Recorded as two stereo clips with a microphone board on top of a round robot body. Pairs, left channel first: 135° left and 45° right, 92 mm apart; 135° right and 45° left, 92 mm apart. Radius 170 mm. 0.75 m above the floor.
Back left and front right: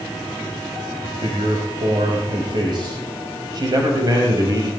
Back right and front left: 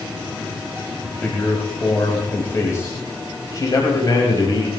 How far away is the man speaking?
About 5 m.